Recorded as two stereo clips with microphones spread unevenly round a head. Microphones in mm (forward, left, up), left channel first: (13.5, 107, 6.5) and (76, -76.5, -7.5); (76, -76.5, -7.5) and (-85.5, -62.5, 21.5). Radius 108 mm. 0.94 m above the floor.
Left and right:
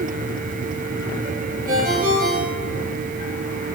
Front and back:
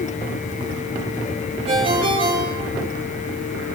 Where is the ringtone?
130° right, 9 m.